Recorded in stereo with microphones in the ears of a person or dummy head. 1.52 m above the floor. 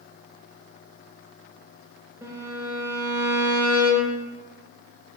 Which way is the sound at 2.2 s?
5° right (ahead or behind).